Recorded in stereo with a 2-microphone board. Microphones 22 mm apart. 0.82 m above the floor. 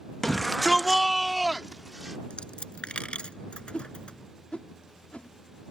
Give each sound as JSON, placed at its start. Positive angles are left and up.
{"t": 0.2, "sound": "a shout", "side_deg": 15}
{"t": 2.3, "sound": "a dropped coin", "side_deg": 55}
{"t": 3.7, "sound": "a whoosh", "side_deg": 60}